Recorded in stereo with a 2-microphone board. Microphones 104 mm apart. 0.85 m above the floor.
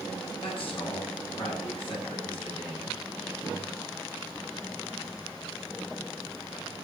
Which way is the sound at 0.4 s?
60° left (ahead or behind).